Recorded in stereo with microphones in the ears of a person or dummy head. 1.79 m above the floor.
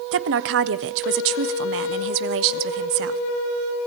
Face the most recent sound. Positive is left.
turn(degrees=-65)  # may be behind; listen again after turning